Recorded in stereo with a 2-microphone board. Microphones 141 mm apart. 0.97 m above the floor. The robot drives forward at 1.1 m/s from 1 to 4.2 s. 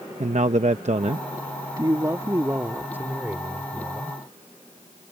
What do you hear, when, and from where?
0.2 s a man speaking: 55° right (ahead or behind); by 4.2 s 10° right (ahead or behind)